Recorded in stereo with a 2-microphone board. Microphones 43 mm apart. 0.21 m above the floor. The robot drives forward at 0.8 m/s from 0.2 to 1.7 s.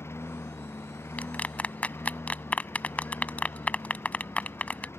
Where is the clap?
35° left (ahead or behind).